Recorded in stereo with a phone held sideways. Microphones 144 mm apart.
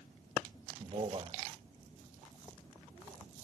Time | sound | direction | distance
0.8 | a man speaking | 40° right (ahead or behind) | 1.3 m